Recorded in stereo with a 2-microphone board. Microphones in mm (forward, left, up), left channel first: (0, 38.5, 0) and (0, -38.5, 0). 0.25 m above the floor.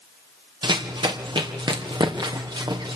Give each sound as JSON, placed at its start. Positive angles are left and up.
{"t": 0.6, "sound": "running footsteps", "side_deg": -85, "distance_m": 3.0}